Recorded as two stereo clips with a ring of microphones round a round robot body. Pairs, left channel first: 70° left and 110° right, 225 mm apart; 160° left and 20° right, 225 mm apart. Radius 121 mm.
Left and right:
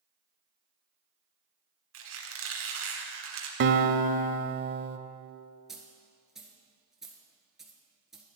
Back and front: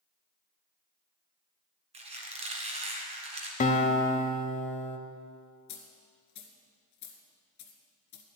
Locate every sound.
1.9 s a squeak: 85° right, 2 m
3.6 s a guitar: 145° right, 0.7 m
5.7 s a dropped coin: 160° left, 1.4 m